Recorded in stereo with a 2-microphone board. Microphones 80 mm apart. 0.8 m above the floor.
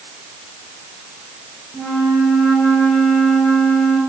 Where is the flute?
10° left (ahead or behind), 3.5 m.